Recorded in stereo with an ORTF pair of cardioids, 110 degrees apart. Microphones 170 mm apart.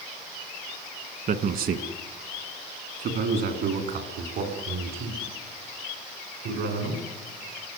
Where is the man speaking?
55° right, 1.7 m; by 7.0 s 80° right, 6.5 m.